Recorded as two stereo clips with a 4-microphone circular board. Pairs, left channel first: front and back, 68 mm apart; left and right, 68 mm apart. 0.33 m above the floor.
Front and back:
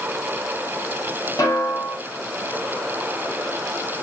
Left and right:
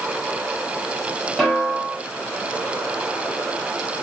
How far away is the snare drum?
About 1.6 m.